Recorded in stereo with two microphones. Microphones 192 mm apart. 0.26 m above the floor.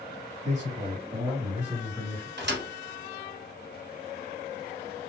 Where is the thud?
75° right (ahead or behind), 1.2 m.